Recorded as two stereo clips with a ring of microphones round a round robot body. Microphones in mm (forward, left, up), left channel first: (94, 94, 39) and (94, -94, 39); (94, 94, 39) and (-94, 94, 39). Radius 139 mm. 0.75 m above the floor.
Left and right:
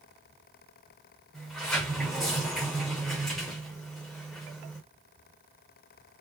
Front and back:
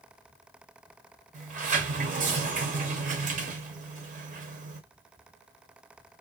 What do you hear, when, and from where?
1.3 s a sliding door: straight behind, 0.7 m